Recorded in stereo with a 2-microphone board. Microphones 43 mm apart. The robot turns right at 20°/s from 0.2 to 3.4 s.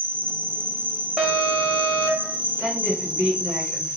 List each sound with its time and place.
0.0 s an insect: 100° right, 0.7 m; by 4.0 s 35° right, 0.7 m
1.2 s an alarm: 10° right (ahead or behind), 0.7 m; by 2.4 s 5° left (ahead or behind), 0.7 m
2.6 s a woman speaking: 30° right (ahead or behind), 1.4 m